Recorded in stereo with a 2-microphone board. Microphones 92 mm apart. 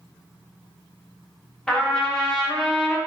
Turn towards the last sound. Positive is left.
turn(degrees=10)  # may be behind; listen again after turning